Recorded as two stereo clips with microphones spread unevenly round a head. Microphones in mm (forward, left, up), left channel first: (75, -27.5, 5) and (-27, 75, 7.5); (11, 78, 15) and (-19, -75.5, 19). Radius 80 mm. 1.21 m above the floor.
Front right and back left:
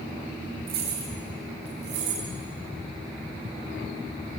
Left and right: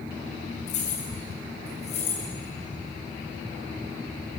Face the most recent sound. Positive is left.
turn(degrees=130)